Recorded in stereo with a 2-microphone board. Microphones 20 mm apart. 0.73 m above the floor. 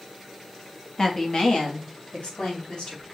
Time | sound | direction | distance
1.0 | a woman speaking | 35° left (ahead or behind) | 0.8 m